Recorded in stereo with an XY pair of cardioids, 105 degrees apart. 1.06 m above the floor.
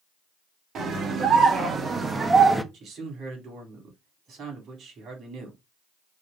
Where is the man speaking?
65° right, 3 m.